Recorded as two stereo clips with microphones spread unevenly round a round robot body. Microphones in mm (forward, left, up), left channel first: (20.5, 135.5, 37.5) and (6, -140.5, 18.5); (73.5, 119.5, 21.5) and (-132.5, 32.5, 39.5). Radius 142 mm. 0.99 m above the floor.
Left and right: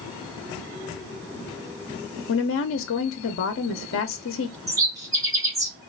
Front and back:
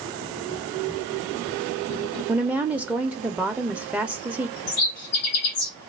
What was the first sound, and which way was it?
A woman speaking, 115° left.